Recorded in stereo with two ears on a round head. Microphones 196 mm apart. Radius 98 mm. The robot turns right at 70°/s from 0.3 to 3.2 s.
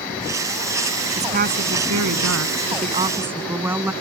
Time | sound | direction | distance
1.2 | a woman speaking | 155° right | ?